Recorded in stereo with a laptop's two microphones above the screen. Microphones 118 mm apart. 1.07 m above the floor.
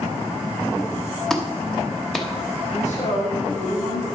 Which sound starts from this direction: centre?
A clap, at 1.3 s.